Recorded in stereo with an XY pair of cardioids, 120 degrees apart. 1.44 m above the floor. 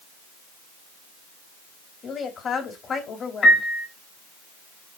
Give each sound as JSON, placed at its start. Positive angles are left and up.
{"t": 2.0, "sound": "a woman speaking", "azimuth_deg": 45, "distance_m": 3.0}
{"t": 3.4, "sound": "a piano", "azimuth_deg": 40, "distance_m": 2.5}